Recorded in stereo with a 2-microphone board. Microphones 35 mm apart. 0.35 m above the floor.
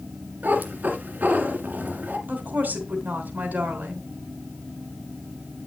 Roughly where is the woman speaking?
Right.